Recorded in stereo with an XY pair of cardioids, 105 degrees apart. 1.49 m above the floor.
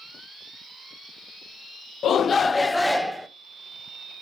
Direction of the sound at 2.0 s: 60° left.